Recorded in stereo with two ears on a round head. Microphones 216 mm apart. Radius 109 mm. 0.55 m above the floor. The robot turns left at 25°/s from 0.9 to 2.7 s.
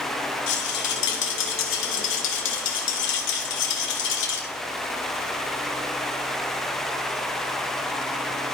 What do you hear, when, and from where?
0.5 s a rattle: 115° left, 1.4 m; by 4.5 s 70° left, 1.4 m